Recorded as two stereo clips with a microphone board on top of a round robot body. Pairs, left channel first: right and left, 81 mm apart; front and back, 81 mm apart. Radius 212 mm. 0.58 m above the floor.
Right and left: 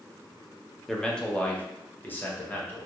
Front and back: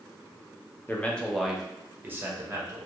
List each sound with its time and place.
0.9 s a man speaking: 15° right, 0.9 m; by 2.9 s 150° right, 1.2 m